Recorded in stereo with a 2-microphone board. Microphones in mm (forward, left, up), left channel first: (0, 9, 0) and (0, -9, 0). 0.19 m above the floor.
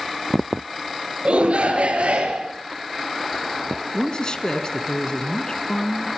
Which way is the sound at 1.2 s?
65° right (ahead or behind).